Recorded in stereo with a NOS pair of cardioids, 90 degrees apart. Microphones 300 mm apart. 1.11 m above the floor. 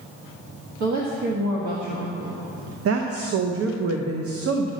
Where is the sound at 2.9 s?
50° right, 0.9 m.